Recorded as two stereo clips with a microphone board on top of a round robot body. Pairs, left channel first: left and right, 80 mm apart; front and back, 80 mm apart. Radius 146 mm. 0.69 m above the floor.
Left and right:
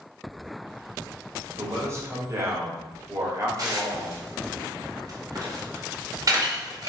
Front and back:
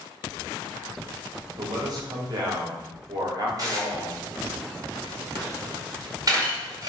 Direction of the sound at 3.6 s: 130° right.